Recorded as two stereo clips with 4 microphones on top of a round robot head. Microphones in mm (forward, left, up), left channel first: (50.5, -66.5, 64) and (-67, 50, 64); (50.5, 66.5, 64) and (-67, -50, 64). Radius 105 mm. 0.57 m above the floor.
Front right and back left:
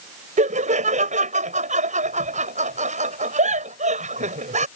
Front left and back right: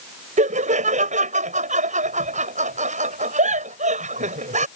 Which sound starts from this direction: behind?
Laughter, at 0.4 s.